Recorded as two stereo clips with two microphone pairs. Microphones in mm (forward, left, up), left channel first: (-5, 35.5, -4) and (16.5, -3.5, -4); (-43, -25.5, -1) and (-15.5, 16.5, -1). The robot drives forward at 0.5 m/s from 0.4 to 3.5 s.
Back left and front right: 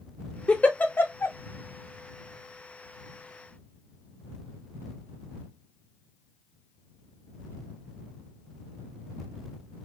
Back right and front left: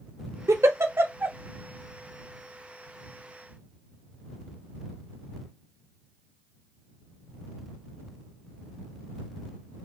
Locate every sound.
0.5 s a giggle: 55° left, 0.6 m; by 1.4 s 110° left, 0.5 m